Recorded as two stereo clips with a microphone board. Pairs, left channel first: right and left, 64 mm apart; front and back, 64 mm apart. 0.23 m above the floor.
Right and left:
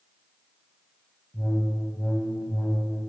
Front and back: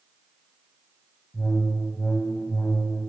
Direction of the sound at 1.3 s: 45° right.